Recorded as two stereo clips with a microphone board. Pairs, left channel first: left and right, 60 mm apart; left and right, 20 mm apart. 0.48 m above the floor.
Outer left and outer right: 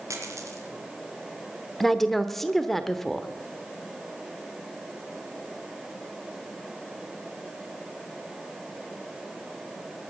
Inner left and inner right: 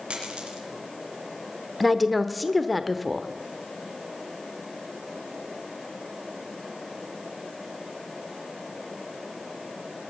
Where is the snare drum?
No snare drum in this recording.